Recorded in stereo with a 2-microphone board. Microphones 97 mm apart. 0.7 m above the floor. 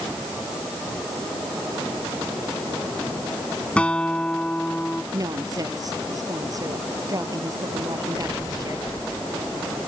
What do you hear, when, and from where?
3.8 s a guitar: 10° left (ahead or behind)
5.1 s a woman speaking: 35° right (ahead or behind)